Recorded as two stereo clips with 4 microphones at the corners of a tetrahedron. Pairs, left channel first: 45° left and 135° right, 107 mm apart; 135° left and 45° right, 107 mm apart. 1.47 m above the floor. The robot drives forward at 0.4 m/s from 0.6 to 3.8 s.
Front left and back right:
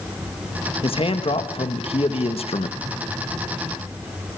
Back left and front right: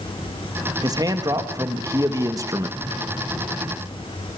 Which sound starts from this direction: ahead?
A man speaking, at 0.8 s.